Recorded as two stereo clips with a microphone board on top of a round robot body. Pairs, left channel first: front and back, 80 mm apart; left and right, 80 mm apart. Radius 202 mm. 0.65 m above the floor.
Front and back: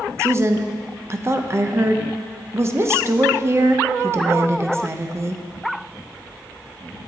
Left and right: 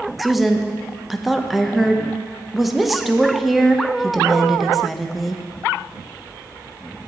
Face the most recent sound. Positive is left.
turn(degrees=180)